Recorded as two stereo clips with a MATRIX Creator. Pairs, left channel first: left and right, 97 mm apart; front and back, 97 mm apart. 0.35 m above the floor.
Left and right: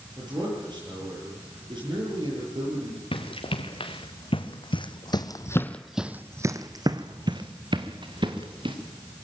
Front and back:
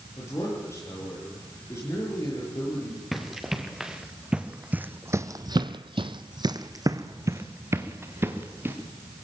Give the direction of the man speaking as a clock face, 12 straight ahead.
2 o'clock.